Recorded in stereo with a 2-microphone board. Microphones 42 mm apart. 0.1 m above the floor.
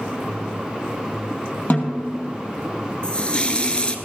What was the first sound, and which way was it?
A snare drum, 45° left (ahead or behind).